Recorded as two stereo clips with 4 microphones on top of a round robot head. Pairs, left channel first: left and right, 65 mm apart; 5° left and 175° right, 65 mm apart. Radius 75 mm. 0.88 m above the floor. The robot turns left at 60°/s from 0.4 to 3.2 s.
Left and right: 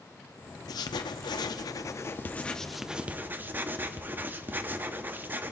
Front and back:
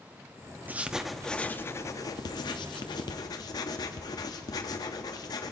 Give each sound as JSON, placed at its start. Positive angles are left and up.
{"t": 0.7, "sound": "writing", "azimuth_deg": 120, "distance_m": 0.7}